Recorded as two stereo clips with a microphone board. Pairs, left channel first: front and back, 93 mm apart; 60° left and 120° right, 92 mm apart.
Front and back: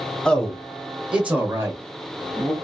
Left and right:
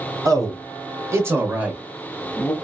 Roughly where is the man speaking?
Right.